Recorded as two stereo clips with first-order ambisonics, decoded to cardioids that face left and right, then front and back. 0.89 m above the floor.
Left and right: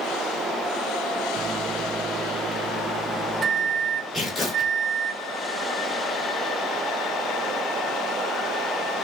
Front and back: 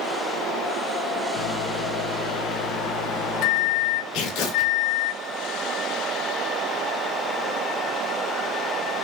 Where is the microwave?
25° right, 0.6 m.